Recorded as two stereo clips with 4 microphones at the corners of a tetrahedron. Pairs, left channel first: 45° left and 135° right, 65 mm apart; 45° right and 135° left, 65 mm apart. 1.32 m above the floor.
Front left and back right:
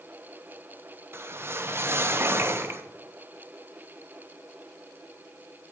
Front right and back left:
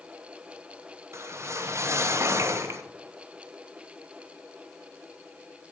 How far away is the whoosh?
About 0.7 m.